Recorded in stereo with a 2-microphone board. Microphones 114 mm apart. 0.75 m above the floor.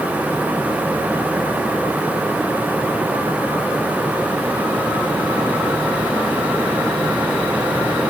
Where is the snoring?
No snoring in this recording.